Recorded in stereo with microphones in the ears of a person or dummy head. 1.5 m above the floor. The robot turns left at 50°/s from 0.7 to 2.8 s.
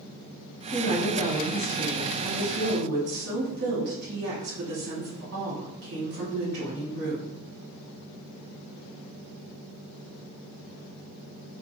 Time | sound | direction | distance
0.7 | a woman speaking | 35° left | 1.6 m